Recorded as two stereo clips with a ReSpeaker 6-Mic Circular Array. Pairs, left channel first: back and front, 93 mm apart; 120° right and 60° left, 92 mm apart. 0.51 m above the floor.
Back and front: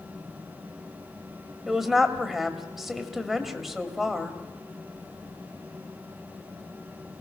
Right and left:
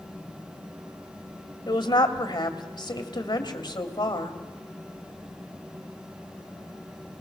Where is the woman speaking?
85° right, 2 m.